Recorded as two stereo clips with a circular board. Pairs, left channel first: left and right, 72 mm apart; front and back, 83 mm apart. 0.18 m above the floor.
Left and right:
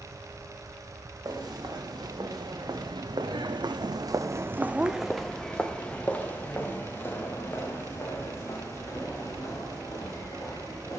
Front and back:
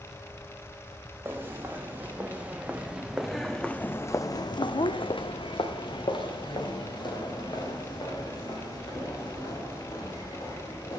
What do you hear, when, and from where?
1.2 s footsteps: 120° right, 1.8 m; by 11.0 s 35° left, 4 m